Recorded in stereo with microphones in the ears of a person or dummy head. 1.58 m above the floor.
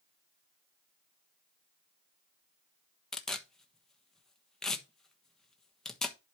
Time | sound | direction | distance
3.1 | tearing paper | 5° left (ahead or behind) | 1.2 m